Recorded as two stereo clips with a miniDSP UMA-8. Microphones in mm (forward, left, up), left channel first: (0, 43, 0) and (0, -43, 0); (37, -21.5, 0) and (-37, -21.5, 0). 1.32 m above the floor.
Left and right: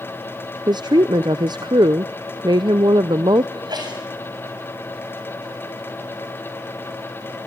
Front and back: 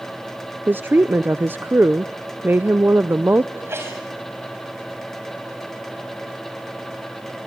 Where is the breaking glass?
I don't hear breaking glass.